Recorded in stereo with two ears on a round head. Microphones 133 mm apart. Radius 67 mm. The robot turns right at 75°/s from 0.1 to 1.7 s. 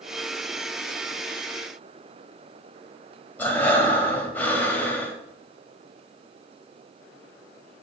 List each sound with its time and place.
3.4 s breathing: 10° left (ahead or behind), 1.7 m